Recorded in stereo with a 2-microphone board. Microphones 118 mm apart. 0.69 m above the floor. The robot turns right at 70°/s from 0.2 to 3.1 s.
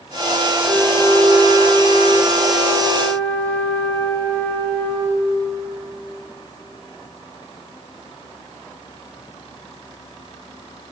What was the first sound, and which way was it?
A flute, 10° right.